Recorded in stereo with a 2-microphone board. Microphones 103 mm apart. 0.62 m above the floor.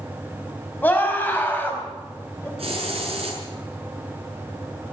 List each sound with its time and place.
0.8 s a scream: 20° left (ahead or behind), 5 m
2.6 s a hiss: 70° right (ahead or behind), 7 m